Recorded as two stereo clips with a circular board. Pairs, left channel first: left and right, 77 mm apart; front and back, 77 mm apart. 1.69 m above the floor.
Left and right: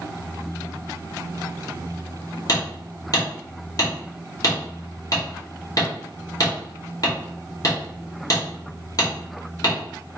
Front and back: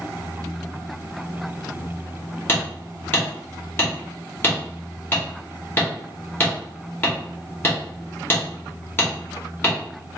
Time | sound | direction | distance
2.5 | hammering | 55° left | 2 m